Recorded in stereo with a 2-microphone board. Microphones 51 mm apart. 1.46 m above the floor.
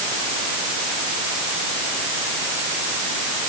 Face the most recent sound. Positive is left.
No sound to turn to.